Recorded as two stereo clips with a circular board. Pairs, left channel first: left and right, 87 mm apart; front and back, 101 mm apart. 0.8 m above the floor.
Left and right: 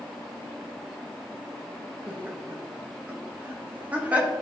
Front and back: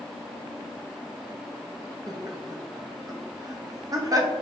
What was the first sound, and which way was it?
Laughter, 150° right.